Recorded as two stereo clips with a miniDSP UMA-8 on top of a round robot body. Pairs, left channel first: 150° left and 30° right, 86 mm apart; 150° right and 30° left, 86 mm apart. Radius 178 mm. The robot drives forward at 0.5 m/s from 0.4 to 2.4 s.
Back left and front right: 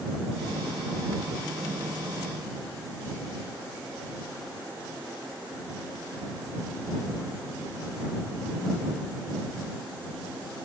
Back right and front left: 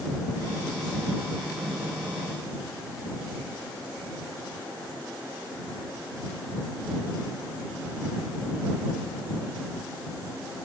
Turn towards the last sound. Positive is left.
No sound to turn to.